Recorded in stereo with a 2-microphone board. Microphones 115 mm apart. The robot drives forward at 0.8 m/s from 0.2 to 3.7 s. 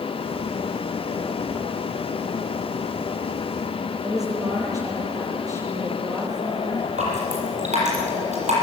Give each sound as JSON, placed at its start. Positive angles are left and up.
{"t": 4.0, "sound": "a woman speaking", "side_deg": -30, "distance_m": 9.5}
{"t": 7.0, "sound": "dripping", "side_deg": -85, "distance_m": 7.5}